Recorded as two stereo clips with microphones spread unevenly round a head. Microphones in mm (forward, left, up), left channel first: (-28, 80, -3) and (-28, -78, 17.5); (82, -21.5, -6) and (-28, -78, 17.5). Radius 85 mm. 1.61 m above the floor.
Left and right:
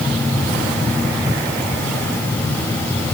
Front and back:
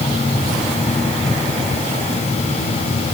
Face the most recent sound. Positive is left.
No sound to turn to.